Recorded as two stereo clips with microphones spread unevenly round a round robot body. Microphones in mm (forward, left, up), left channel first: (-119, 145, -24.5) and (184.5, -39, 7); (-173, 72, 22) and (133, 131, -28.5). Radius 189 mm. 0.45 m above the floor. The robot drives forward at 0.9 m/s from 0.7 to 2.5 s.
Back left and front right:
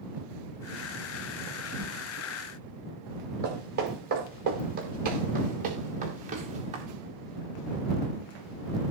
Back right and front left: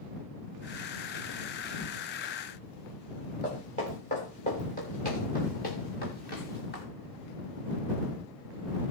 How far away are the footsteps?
About 5 m.